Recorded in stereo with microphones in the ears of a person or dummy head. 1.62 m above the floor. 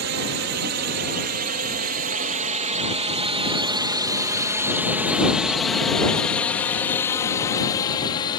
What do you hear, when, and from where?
0.0 s a drone: 65° right (ahead or behind); by 8.4 s 25° left (ahead or behind)